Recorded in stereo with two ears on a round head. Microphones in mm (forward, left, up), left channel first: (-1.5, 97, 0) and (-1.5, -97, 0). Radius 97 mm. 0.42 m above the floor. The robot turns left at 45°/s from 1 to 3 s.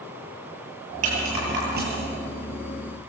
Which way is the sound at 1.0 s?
80° right.